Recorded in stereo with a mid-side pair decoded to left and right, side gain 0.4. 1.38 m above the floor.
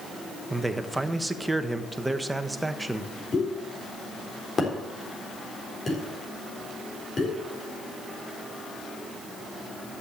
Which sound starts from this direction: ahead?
A man speaking, at 0.5 s.